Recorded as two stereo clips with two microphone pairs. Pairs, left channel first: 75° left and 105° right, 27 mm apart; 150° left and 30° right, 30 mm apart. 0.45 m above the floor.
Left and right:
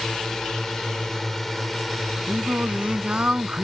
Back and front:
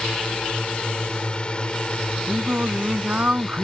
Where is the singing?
65° right.